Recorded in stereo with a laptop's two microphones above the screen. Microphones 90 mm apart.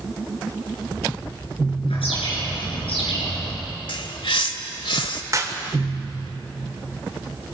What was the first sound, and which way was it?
A bird, 85° left.